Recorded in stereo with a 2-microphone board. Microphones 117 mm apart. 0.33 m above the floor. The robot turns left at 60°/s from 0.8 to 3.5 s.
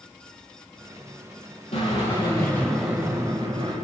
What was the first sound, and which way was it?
A drill, 65° left.